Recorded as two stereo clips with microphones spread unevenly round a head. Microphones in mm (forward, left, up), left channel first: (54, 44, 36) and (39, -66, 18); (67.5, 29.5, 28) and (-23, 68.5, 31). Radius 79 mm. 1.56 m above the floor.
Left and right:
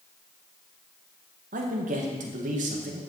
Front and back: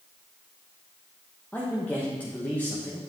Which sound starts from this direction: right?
A man speaking, at 1.5 s.